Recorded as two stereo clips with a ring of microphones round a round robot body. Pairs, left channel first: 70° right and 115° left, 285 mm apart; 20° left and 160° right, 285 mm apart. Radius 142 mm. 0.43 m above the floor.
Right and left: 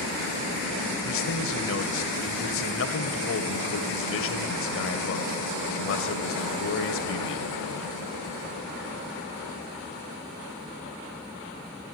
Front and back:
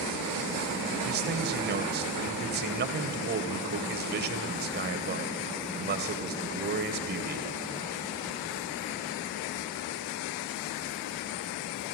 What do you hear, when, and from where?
1.0 s a man speaking: 105° right, 2 m